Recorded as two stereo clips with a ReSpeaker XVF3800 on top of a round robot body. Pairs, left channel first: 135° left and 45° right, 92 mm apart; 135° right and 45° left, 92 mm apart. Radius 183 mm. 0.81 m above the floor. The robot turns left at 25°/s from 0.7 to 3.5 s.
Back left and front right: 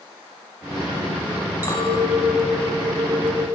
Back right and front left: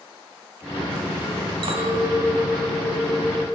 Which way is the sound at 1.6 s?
70° left.